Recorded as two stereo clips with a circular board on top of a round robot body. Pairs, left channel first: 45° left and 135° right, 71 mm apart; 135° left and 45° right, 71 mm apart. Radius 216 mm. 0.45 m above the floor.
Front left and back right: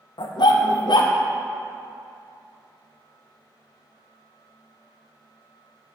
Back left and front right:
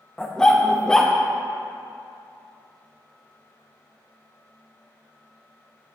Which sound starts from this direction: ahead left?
A dog barking, at 0.2 s.